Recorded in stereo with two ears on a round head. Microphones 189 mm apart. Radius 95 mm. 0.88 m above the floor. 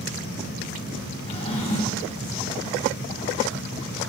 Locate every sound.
1.3 s a drawer: 30° left (ahead or behind), 2.5 m